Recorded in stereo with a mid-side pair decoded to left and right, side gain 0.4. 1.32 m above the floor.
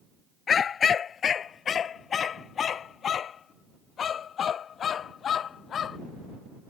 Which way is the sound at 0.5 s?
55° left.